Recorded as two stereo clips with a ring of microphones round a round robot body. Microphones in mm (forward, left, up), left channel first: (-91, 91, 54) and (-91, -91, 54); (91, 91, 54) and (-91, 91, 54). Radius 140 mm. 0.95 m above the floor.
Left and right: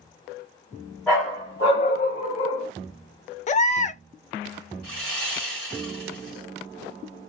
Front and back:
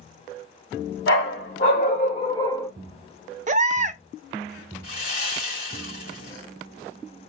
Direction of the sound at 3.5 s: 135° left.